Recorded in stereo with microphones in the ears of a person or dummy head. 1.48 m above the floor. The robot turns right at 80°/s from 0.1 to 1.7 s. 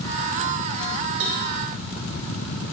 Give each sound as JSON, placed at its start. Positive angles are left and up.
{"t": 1.2, "sound": "a cowbell", "side_deg": -70, "distance_m": 3.0}